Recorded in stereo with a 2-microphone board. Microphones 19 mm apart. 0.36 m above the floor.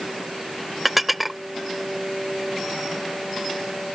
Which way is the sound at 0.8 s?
5° right (ahead or behind).